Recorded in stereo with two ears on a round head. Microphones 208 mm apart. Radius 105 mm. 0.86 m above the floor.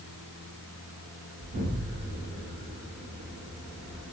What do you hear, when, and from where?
1.4 s an explosion: 45° right (ahead or behind), 1.7 m